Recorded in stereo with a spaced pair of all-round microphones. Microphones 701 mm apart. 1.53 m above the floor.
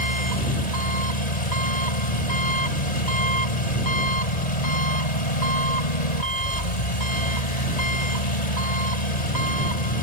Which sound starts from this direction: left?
An engine running, at 0.0 s.